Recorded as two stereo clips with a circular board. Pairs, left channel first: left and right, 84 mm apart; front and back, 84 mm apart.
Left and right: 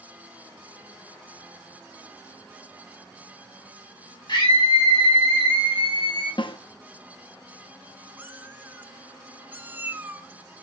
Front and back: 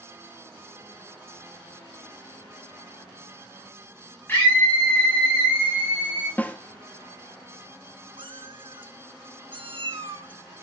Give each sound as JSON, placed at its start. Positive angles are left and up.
{"t": 4.3, "sound": "a scream", "azimuth_deg": 65, "distance_m": 2.5}
{"t": 6.4, "sound": "a snare drum", "azimuth_deg": 70, "distance_m": 0.7}
{"t": 8.2, "sound": "a cat meowing", "azimuth_deg": -160, "distance_m": 0.9}